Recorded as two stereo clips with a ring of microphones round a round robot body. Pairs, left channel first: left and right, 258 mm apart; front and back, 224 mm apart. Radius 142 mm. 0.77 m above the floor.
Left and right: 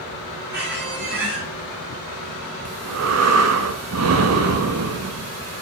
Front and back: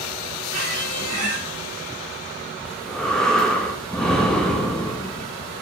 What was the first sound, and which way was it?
A squeak, 145° right.